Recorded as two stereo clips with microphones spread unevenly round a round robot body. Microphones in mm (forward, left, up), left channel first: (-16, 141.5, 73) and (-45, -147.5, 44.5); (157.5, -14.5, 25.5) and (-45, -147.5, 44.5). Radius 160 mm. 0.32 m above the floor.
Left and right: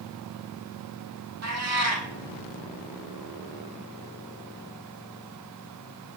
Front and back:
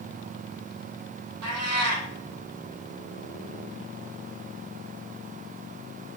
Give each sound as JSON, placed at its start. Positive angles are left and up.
{"t": 1.4, "sound": "a cat meowing", "azimuth_deg": -135, "distance_m": 2.0}